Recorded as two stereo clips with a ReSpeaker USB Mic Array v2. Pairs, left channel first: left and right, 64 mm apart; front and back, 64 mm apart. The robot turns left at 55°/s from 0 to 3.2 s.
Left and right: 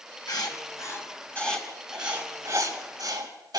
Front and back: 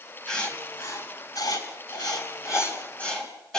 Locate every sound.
0.3 s writing: 80° left, 3.5 m; by 3.6 s 80° right, 3.5 m